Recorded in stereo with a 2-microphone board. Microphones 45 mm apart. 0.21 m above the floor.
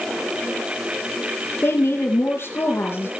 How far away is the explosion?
I don't hear an explosion.